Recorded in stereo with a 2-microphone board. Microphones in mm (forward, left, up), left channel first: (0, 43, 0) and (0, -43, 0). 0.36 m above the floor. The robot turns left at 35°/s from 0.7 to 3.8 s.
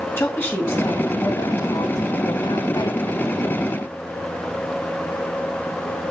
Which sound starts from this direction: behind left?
A woman speaking, at 0.2 s.